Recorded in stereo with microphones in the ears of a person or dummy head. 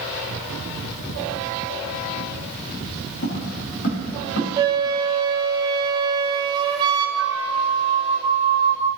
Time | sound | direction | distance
3.2 | footsteps | 50° left (ahead or behind) | 3 m
4.6 | a flute | 25° right (ahead or behind) | 0.7 m
7.2 | a flute | 20° left (ahead or behind) | 3.5 m